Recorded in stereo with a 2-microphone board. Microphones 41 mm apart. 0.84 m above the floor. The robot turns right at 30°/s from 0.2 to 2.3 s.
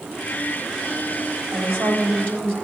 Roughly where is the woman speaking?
Right.